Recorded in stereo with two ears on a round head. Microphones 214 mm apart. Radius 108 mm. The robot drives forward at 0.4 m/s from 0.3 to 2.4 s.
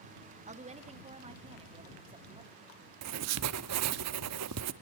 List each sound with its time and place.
0.5 s a woman speaking: 30° right (ahead or behind), 2.5 m; by 2.7 s 20° right (ahead or behind), 3 m
3.0 s writing: 70° right (ahead or behind), 1.0 m